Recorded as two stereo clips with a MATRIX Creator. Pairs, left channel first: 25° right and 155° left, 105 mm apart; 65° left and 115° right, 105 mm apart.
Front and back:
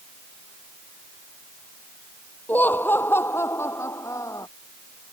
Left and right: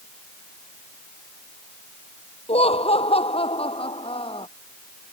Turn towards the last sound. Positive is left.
turn(degrees=35)